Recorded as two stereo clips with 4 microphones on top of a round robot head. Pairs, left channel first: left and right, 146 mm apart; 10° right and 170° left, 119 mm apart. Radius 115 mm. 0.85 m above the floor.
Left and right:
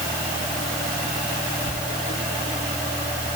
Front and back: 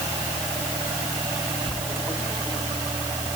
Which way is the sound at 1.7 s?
80° left.